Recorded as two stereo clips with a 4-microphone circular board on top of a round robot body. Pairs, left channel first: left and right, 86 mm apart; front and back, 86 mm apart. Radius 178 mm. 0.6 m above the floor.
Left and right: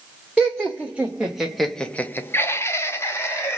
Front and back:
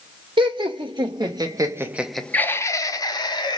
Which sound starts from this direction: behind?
Laughter, at 0.4 s.